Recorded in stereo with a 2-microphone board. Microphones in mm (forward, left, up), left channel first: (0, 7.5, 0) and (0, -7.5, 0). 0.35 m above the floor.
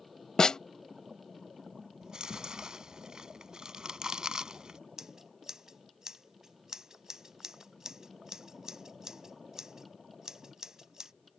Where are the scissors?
45° right (ahead or behind).